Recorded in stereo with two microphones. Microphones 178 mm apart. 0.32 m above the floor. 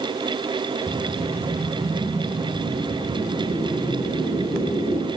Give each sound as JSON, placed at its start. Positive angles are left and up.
{"t": 0.9, "sound": "a whoosh", "side_deg": -35, "distance_m": 2.5}